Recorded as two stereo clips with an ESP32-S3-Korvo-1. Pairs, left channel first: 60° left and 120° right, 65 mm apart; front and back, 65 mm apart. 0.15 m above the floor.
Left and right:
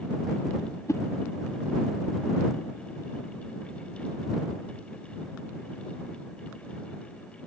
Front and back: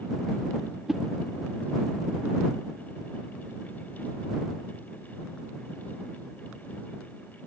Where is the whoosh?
100° left.